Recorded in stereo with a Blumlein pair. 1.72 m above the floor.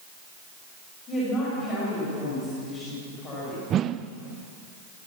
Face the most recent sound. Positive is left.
turn(degrees=-30)